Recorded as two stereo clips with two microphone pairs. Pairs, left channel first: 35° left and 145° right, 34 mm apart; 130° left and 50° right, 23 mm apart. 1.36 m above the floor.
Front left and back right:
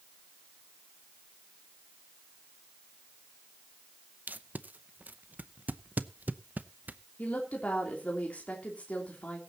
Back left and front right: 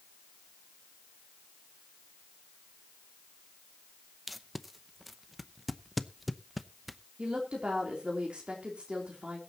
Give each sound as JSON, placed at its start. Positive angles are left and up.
{"t": 4.3, "sound": "tape being pulled", "azimuth_deg": -135, "distance_m": 0.7}
{"t": 7.2, "sound": "a woman speaking", "azimuth_deg": -5, "distance_m": 3.0}